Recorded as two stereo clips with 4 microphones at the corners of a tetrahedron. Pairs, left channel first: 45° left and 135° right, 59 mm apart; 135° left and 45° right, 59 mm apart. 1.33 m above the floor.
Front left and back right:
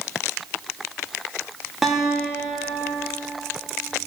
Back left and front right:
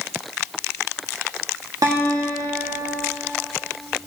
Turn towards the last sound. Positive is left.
turn(degrees=-50)